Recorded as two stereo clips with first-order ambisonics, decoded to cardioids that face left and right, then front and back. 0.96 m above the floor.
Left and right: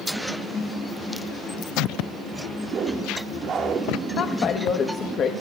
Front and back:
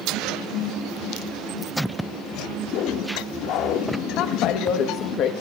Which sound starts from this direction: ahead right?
A whoosh, at 2.6 s.